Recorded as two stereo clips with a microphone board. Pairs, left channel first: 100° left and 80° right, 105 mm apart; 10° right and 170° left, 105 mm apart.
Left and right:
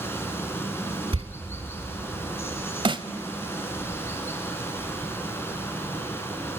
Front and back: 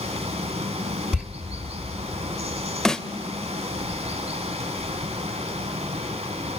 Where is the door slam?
110° right, 2.5 m.